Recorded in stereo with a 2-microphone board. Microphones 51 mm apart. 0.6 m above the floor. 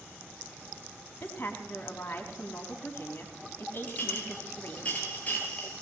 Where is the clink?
30° left (ahead or behind), 8 m.